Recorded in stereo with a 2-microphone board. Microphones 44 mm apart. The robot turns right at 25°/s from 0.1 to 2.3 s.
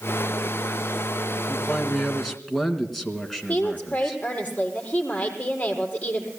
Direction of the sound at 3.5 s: 30° left (ahead or behind).